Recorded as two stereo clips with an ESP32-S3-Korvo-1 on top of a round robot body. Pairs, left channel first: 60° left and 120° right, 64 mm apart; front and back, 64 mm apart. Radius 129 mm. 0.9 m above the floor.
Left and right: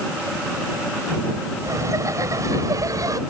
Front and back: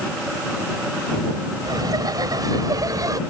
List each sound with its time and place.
1.6 s laughter: 160° right; by 3.2 s 150° right